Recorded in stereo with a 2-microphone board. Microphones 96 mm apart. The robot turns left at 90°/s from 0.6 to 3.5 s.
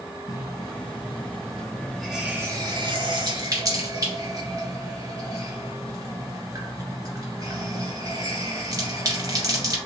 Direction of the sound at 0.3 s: 40° left (ahead or behind).